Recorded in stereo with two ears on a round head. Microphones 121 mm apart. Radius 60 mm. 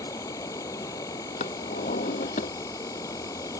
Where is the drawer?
60° left (ahead or behind).